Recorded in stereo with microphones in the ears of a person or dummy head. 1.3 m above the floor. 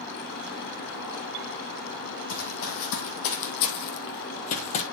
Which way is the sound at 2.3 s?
60° left (ahead or behind).